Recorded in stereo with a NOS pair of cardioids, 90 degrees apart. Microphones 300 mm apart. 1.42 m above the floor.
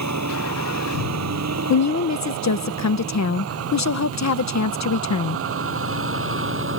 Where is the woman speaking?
55° left.